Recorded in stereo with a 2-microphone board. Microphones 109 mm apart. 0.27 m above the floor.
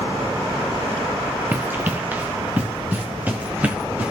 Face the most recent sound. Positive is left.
turn(degrees=-15)  # may be behind; listen again after turning